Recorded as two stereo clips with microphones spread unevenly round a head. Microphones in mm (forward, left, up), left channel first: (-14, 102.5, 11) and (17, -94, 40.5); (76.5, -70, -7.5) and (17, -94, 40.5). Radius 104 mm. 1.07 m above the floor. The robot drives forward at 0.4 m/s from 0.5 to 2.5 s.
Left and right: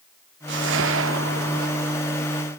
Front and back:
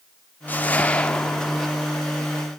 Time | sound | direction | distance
0.5 | a whoosh | 55° right | 1.2 m